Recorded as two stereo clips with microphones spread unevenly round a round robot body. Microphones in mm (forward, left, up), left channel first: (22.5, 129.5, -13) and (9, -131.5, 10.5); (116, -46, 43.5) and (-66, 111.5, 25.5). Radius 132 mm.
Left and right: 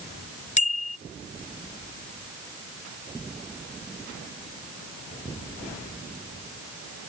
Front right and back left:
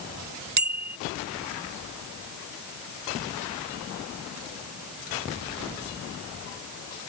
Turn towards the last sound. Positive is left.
turn(degrees=150)